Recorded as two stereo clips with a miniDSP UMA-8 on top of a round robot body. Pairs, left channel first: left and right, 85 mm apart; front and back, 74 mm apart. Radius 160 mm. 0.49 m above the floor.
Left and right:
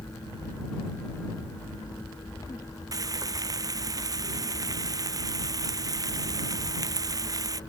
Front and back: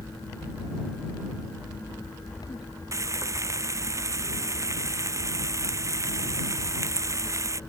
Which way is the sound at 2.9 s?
135° right.